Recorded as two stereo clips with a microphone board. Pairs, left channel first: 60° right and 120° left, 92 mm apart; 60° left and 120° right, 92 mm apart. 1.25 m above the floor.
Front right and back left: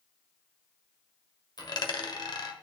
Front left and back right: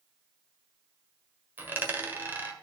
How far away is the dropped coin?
About 1.3 m.